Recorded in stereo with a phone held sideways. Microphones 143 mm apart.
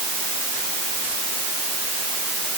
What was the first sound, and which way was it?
Only background noise.